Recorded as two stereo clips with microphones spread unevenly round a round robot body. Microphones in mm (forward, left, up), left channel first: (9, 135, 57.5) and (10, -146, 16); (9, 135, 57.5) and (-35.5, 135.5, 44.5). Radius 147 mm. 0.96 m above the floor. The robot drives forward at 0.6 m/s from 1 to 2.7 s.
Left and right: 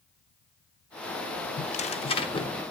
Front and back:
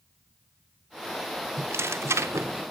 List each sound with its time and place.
1.6 s tearing paper: 145° left, 0.7 m; by 2.6 s 165° left, 1.3 m